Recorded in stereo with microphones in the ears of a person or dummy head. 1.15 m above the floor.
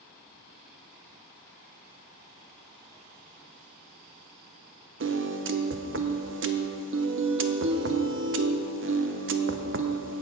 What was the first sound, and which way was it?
A piano, 60° right (ahead or behind).